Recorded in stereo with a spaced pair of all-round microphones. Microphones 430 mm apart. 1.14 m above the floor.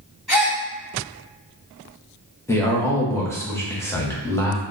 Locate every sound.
0.3 s a gasp: 65° right (ahead or behind), 1.5 m
2.5 s a man speaking: 5° left (ahead or behind), 0.8 m